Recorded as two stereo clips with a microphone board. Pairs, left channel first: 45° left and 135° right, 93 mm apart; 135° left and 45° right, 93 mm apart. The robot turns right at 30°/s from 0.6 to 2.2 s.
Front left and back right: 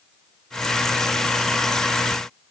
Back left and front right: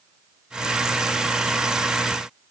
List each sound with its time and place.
Only background noise.